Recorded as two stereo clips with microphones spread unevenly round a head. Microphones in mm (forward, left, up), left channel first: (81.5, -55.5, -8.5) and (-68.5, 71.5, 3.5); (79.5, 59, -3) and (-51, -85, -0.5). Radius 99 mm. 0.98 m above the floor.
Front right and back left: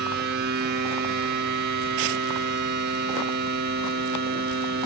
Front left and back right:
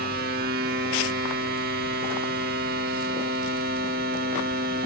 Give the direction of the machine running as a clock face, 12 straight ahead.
6 o'clock.